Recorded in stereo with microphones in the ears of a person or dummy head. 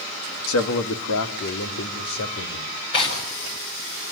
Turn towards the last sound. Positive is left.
turn(degrees=30)  # may be behind; listen again after turning